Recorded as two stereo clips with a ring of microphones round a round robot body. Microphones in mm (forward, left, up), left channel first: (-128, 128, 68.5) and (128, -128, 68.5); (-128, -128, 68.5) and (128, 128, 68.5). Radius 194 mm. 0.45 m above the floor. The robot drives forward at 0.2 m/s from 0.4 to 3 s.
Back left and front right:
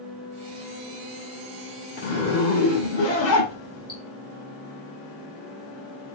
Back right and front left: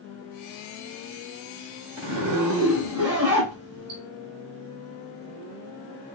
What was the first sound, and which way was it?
A zipper, 85° left.